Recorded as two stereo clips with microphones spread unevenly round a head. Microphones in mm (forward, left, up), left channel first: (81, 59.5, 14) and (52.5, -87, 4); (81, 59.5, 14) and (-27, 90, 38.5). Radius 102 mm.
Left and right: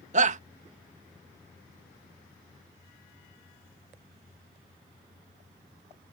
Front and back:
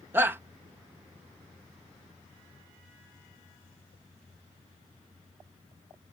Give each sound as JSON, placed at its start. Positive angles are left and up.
{"t": 0.1, "sound": "a shout", "azimuth_deg": -115}